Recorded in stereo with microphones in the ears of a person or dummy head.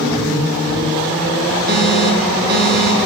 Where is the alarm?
60° right (ahead or behind), 3.5 m.